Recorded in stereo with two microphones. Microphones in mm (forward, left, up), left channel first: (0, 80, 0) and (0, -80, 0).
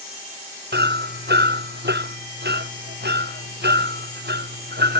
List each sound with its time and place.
0.7 s hammering: 85° right